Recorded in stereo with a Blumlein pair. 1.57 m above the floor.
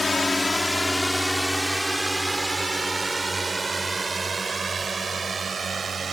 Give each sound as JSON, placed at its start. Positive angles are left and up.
{"t": 0.0, "sound": "a drone", "azimuth_deg": 10}